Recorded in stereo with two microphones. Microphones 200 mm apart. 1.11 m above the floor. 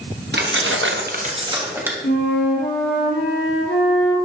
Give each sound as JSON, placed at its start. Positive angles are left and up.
{"t": 0.3, "sound": "keys jangling", "side_deg": -60, "distance_m": 1.0}
{"t": 2.0, "sound": "a flute", "side_deg": 75, "distance_m": 3.0}